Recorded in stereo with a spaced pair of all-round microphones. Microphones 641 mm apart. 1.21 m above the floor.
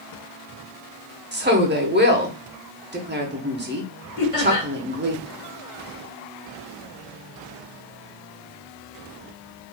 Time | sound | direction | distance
1.3 | a woman speaking | 20° right (ahead or behind) | 0.7 m
4.2 | laughter | 60° left (ahead or behind) | 1.3 m